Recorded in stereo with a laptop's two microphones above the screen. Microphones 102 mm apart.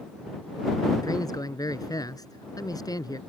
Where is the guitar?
I don't hear a guitar.